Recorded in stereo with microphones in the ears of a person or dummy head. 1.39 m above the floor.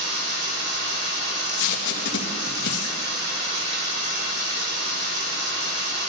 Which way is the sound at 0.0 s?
60° right (ahead or behind).